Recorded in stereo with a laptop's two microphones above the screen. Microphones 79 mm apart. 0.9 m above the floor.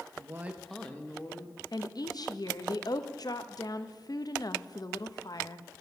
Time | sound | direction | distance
0.2 | a woman speaking | 45° right (ahead or behind) | 0.6 m
1.7 | a woman speaking | 55° left (ahead or behind) | 0.7 m